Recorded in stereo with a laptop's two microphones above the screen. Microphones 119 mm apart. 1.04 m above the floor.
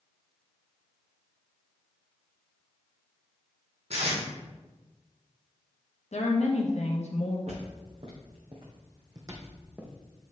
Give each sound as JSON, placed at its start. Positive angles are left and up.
{"t": 3.9, "sound": "tape being pulled", "side_deg": -65, "distance_m": 3.5}
{"t": 6.1, "sound": "a woman speaking", "side_deg": 70, "distance_m": 1.2}
{"t": 7.5, "sound": "footsteps", "side_deg": -65, "distance_m": 3.5}